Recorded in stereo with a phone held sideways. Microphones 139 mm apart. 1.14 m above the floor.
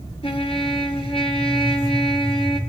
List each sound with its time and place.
0.2 s a trumpet: 40° left (ahead or behind), 2.5 m